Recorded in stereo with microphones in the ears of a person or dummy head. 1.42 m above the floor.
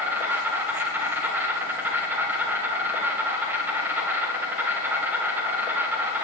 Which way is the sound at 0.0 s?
5° right (ahead or behind).